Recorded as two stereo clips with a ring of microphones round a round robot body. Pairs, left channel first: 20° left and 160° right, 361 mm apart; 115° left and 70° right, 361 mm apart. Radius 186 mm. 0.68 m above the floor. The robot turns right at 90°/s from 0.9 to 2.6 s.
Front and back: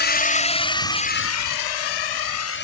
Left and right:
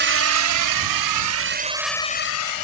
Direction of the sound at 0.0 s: 25° right.